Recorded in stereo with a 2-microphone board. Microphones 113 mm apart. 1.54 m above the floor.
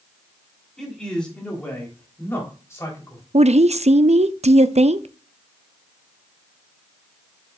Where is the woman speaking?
75° right (ahead or behind), 0.5 m.